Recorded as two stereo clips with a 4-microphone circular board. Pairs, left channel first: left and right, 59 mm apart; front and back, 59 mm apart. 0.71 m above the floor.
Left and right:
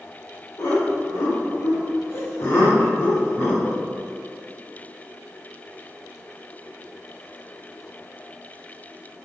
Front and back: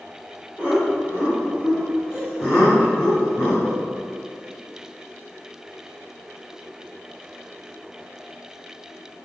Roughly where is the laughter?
Left.